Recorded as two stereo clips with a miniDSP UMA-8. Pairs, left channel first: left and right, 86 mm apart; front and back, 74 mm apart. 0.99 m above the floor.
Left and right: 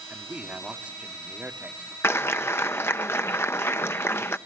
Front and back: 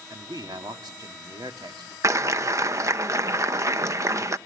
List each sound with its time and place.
0.1 s a man speaking: 165° right, 2.5 m
2.0 s a clap: 145° left, 0.8 m